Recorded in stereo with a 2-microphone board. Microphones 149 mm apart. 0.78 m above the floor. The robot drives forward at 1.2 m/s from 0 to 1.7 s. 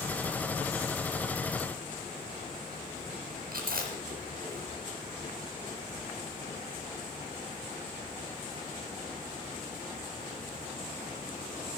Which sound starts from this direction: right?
Chewing, at 3.5 s.